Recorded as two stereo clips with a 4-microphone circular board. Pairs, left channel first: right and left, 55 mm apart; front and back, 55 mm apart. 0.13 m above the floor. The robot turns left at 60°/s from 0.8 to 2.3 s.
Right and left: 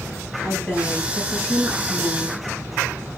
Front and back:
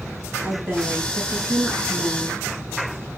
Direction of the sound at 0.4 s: 170° right.